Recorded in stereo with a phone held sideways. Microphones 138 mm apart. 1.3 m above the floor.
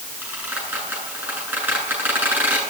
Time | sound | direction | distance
0.2 | a squeak | 10° right (ahead or behind) | 9 m